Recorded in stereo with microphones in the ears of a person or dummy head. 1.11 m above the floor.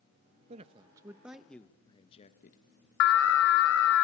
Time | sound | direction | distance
0.5 | a man speaking | 35° right (ahead or behind) | 1.6 m
3.0 | an alarm | 75° left (ahead or behind) | 1.6 m